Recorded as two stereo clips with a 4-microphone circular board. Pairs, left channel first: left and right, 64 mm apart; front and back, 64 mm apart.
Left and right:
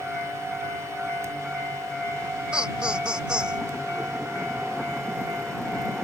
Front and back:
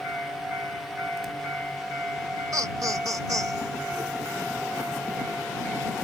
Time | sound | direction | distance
2.5 | laughter | 165° right | ?